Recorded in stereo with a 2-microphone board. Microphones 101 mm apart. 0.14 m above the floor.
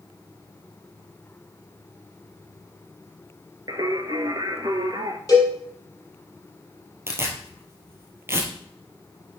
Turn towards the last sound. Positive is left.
turn(degrees=-25)  # may be behind; listen again after turning